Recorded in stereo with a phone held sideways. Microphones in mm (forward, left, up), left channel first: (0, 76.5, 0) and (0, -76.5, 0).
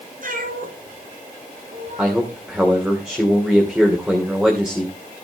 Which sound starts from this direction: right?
A cat meowing, at 0.2 s.